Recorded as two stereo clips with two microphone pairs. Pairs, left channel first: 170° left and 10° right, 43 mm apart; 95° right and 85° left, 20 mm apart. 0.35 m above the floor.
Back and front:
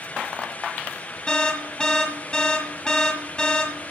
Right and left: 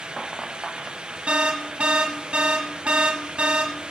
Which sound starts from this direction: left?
An alarm, at 1.3 s.